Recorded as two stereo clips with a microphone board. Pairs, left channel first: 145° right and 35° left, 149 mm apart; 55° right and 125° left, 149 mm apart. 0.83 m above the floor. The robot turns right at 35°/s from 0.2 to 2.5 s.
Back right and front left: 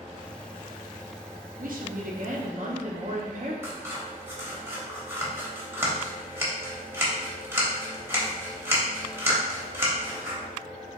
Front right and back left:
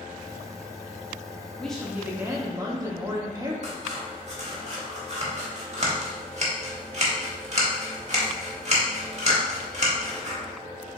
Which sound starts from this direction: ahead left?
A woman speaking, at 1.6 s.